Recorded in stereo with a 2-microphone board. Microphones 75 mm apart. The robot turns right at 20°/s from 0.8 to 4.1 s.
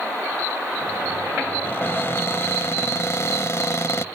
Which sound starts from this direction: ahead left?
A cupboard door, at 1.6 s.